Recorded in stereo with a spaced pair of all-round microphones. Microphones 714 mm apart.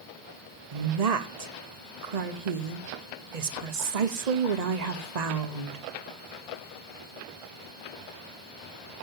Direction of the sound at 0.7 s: 65° right (ahead or behind).